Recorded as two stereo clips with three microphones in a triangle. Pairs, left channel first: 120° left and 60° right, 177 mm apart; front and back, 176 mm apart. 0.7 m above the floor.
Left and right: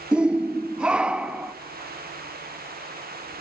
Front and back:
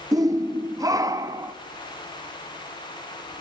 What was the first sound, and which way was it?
A shout, 140° right.